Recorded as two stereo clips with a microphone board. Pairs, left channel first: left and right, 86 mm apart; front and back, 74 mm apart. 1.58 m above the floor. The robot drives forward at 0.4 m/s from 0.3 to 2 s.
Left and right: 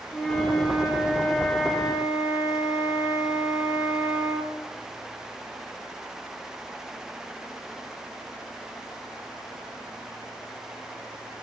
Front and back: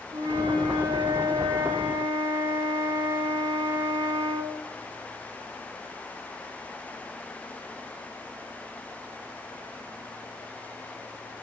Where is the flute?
170° left, 3.5 m; by 4.5 s 175° left, 4.5 m.